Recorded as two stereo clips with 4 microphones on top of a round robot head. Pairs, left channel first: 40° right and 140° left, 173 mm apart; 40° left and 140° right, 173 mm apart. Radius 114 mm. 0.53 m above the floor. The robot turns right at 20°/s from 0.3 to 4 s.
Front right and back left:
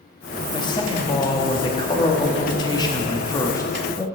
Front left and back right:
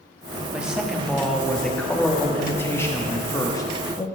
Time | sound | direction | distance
0.5 | a man speaking | 60° right | 1.1 m